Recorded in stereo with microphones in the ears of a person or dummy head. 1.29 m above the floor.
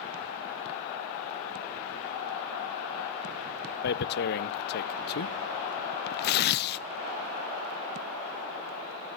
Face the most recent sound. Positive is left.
turn(degrees=50)  # may be behind; listen again after turning